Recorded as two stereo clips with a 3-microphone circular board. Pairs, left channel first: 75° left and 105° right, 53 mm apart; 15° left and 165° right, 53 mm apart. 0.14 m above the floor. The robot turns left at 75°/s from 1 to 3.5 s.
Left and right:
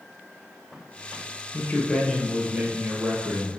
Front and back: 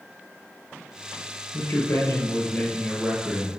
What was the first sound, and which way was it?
A man speaking, 35° left.